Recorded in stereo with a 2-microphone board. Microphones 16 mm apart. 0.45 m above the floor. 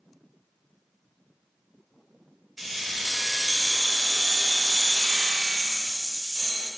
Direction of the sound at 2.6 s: 5° right (ahead or behind).